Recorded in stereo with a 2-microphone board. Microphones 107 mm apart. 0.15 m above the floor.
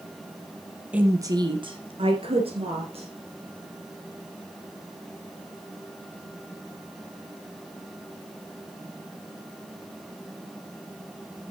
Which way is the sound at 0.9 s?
10° right (ahead or behind).